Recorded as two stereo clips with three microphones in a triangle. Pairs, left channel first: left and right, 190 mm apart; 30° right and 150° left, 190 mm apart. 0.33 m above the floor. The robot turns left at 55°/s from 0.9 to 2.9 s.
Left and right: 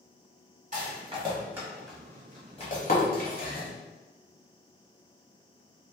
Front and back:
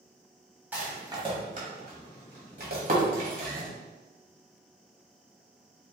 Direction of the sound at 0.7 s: 130° right.